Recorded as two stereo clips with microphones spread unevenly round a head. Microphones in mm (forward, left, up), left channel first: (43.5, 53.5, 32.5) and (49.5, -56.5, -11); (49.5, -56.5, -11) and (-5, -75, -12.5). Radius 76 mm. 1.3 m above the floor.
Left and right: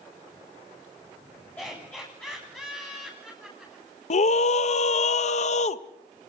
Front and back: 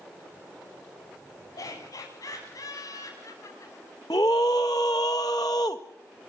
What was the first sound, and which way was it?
Laughter, 20° left.